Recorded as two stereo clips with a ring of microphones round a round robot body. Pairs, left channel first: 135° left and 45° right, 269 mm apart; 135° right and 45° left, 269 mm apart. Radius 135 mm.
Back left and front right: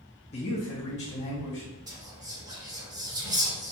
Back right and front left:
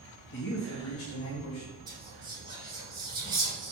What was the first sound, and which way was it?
A man speaking, 165° right.